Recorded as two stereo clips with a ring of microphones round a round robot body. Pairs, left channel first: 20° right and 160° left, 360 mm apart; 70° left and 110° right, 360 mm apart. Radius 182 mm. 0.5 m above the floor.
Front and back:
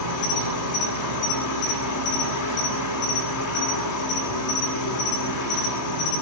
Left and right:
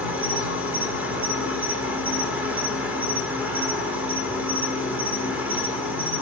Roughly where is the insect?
Ahead right.